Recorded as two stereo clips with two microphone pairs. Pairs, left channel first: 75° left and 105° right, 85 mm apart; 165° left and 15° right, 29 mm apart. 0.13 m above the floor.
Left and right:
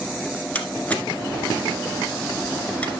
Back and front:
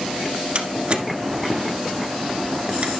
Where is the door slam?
10° left, 1.5 m.